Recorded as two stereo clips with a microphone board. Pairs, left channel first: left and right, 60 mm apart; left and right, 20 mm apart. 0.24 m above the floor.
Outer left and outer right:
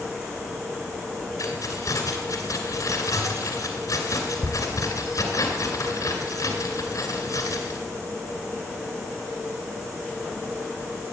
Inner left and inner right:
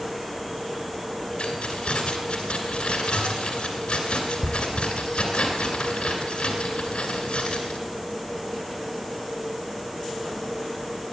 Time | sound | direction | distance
1.4 | keys jangling | 70° left (ahead or behind) | 2 m